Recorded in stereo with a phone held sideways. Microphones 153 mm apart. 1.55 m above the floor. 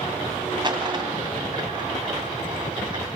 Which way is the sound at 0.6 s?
35° right (ahead or behind).